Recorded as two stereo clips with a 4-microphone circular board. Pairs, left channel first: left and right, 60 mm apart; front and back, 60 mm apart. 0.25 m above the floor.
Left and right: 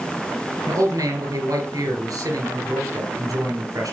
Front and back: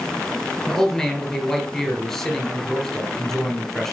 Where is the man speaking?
85° right, 4 m.